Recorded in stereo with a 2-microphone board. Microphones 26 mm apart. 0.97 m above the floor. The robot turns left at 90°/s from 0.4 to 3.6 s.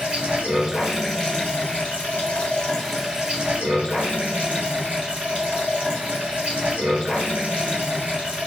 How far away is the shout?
No shout in this recording.